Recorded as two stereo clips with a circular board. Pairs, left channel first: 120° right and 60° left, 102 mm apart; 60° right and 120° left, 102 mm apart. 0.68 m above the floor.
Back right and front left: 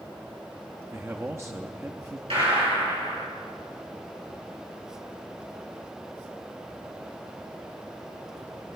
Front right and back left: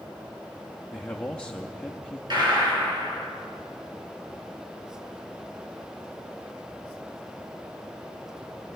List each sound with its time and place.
0.9 s a man speaking: 15° left, 0.6 m
2.3 s a gunshot: 80° left, 4 m